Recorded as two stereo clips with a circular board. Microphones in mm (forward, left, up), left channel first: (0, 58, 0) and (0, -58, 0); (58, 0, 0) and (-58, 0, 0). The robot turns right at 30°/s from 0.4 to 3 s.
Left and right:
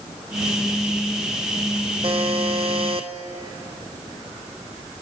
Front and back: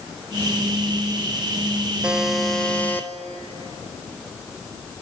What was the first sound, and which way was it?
A buzzer, 100° right.